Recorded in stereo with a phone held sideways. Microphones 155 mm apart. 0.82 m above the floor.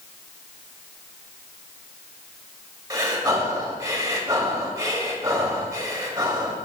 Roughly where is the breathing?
Right.